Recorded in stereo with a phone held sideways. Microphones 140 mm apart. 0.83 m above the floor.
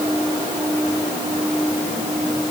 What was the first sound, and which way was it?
Only background noise.